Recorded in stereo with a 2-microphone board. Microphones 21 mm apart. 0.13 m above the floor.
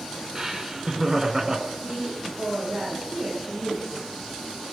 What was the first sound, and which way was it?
Laughter, 20° right (ahead or behind).